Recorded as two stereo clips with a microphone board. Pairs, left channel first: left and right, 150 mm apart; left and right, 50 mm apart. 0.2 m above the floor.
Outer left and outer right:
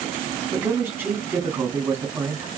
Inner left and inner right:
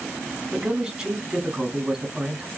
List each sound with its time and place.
0.5 s a man speaking: 15° right (ahead or behind), 1.3 m